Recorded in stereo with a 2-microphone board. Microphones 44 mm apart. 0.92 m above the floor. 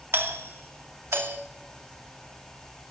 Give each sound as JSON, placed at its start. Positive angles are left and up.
{"t": 0.1, "sound": "a doorbell", "side_deg": -65, "distance_m": 2.5}